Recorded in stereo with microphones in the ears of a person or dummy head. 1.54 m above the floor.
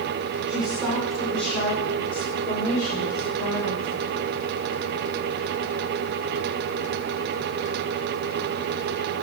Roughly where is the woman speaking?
Centre.